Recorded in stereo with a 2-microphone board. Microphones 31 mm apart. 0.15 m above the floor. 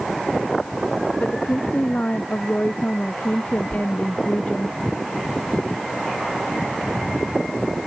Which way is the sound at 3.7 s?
40° left (ahead or behind).